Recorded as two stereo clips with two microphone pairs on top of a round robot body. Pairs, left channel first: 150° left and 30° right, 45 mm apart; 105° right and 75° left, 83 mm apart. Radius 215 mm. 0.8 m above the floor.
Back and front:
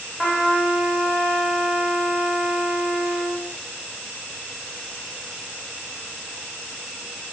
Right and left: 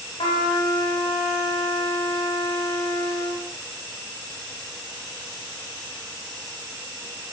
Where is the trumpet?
135° right, 1.1 m.